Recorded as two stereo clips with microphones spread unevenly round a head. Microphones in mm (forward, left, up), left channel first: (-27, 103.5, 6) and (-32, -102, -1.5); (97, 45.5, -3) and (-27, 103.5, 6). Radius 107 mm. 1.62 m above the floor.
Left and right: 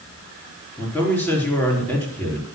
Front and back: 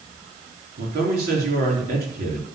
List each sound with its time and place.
0.8 s a man speaking: 170° left, 4.5 m